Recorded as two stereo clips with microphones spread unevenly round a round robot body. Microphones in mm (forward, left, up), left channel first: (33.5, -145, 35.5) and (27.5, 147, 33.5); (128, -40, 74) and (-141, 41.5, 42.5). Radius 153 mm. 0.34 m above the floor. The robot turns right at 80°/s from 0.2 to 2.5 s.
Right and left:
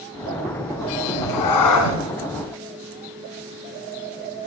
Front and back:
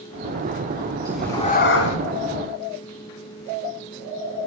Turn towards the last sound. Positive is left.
turn(degrees=0)